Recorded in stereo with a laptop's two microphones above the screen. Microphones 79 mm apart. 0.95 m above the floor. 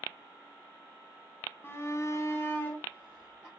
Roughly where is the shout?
Left.